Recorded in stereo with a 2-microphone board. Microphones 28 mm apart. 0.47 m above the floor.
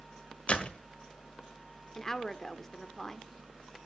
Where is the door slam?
40° left (ahead or behind), 1.5 m.